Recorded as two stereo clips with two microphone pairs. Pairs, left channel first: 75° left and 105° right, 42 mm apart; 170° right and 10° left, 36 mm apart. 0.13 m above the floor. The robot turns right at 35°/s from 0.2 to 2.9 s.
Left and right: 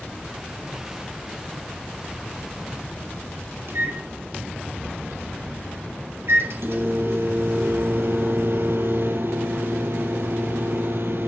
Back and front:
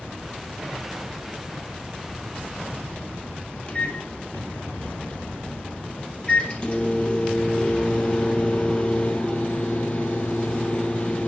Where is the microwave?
110° right, 3 m.